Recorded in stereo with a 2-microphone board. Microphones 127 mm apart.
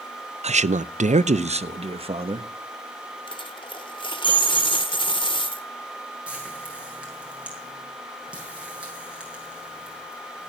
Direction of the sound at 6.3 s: 10° right (ahead or behind).